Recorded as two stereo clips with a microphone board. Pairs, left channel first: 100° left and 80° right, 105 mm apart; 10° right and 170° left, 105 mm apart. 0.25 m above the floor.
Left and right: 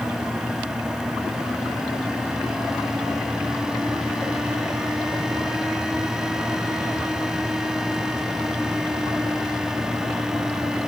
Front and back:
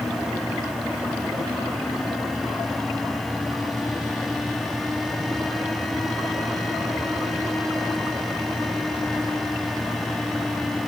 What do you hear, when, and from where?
Only background noise.